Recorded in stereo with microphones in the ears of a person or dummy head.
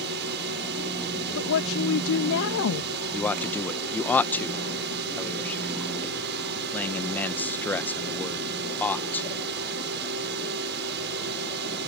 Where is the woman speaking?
70° left (ahead or behind).